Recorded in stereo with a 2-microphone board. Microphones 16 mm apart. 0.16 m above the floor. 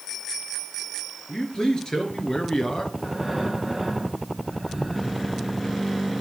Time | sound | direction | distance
1.3 | a man speaking | 45° left (ahead or behind) | 3.5 m
3.0 | breathing | 5° right (ahead or behind) | 2.5 m